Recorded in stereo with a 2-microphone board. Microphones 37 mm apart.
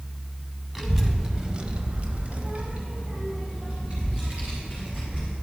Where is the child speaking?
10° right (ahead or behind), 1.5 m; by 5.3 s 25° right (ahead or behind), 3.5 m.